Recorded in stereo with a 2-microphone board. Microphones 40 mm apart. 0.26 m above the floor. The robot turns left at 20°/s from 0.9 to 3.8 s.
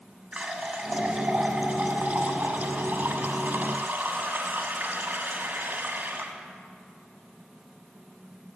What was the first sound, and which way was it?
A running tap, 45° right.